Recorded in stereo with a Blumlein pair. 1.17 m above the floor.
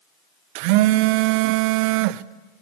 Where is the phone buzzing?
45° right, 0.6 m.